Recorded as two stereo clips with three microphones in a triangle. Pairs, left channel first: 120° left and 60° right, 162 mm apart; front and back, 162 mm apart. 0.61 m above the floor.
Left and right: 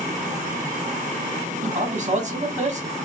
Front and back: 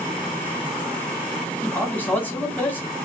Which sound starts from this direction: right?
A man speaking, at 1.6 s.